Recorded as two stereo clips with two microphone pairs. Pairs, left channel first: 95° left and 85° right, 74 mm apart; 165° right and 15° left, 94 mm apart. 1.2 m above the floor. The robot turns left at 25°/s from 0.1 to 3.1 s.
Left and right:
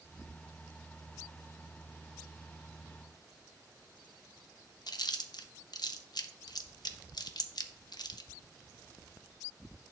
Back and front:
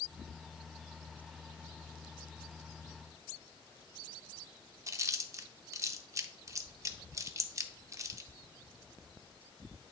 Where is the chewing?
70° left, 0.7 m.